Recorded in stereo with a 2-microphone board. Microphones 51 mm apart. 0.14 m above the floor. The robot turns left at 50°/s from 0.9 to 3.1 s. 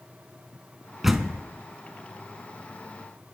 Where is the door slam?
5° right (ahead or behind), 0.7 m; by 1.4 s centre (ahead or behind), 0.7 m.